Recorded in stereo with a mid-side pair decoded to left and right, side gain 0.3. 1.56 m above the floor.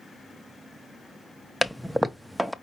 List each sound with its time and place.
1.6 s a toilet flushing: 10° right, 0.7 m